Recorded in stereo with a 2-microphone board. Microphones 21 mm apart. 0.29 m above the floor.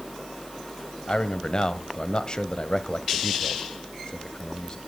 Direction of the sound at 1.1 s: 40° left (ahead or behind).